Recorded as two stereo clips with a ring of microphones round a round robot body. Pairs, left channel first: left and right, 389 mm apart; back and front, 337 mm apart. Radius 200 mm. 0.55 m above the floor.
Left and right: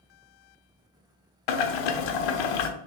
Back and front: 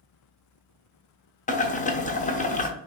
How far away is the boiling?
About 0.7 m.